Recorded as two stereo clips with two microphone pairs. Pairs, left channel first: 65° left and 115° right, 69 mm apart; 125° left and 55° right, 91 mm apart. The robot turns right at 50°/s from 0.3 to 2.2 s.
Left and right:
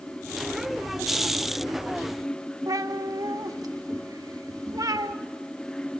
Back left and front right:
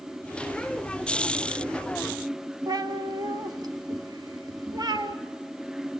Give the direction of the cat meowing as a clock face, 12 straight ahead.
3 o'clock.